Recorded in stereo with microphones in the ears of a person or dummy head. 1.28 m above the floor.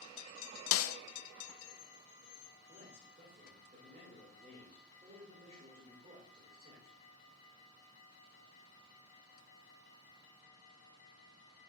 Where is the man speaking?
30° right (ahead or behind), 2.5 m.